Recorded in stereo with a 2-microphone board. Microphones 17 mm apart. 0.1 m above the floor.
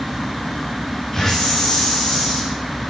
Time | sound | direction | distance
1.1 | a hiss | 15° left (ahead or behind) | 7 m